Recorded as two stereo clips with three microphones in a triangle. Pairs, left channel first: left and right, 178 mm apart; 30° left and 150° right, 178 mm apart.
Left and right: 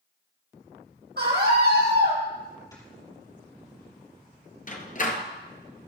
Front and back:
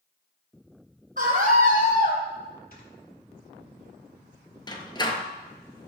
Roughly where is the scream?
Right.